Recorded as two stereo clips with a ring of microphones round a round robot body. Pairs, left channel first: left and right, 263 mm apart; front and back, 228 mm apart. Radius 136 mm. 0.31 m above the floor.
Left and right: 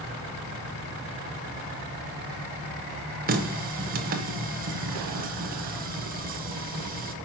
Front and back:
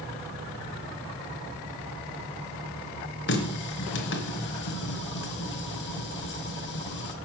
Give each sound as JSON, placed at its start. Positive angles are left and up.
{"t": 3.3, "sound": "a running tap", "azimuth_deg": -35, "distance_m": 1.3}